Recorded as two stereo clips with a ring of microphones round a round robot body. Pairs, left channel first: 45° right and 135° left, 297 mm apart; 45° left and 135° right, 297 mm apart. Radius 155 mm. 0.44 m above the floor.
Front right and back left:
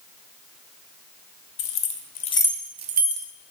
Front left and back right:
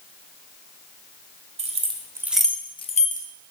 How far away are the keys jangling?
About 0.8 m.